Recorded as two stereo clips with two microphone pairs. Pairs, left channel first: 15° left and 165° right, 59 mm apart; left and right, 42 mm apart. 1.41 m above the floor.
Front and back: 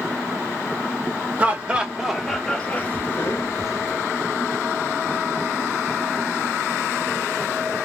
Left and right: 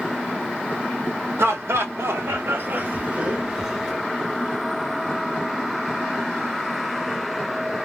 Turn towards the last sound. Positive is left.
turn(degrees=-10)